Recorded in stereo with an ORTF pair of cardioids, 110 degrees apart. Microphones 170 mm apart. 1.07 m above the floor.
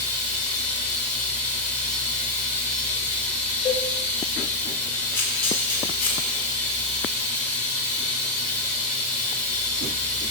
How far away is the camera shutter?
About 2.5 m.